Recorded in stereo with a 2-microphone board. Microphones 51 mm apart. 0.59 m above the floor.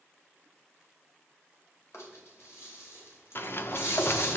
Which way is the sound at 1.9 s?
65° left (ahead or behind).